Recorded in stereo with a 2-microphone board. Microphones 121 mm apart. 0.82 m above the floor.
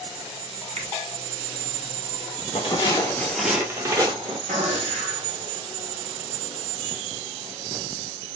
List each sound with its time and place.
0.8 s a finger snap: 65° right (ahead or behind), 0.7 m
2.5 s footsteps: 45° left (ahead or behind), 1.1 m; by 4.4 s 40° right (ahead or behind), 1.5 m
4.5 s a gunshot: 75° right (ahead or behind), 1.5 m